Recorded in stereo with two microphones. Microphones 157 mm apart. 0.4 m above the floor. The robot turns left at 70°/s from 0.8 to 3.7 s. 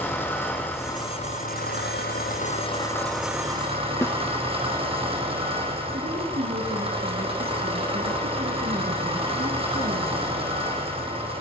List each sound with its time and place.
0.0 s an engine running: 165° left, 7 m; by 11.4 s 35° right, 7 m
4.0 s a snare drum: 15° left (ahead or behind), 1.4 m
5.9 s a woman speaking: 80° right, 8 m